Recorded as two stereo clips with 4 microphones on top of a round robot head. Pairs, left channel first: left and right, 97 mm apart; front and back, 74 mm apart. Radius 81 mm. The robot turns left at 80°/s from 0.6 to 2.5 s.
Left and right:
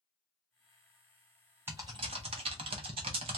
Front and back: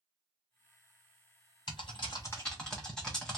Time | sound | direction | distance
1.7 | typing on a keyboard | 20° right | 0.6 m